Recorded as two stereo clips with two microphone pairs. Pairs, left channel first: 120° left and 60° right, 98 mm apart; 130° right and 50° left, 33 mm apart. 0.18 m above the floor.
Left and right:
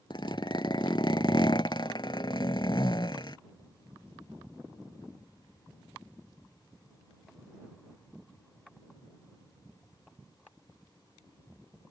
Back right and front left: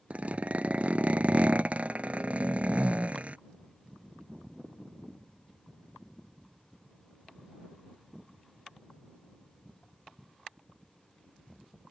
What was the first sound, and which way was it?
A zipper, 85° left.